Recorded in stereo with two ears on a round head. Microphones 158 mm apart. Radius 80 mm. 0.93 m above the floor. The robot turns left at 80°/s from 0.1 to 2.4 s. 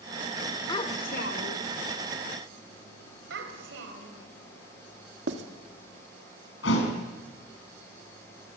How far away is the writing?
About 2 m.